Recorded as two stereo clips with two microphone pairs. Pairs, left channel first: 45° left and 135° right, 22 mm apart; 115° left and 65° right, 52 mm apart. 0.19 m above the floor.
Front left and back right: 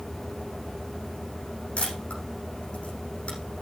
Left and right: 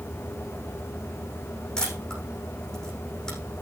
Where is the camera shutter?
35° left, 8 m.